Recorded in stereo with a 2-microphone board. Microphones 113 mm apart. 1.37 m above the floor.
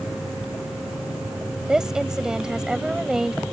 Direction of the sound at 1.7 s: 5° right (ahead or behind).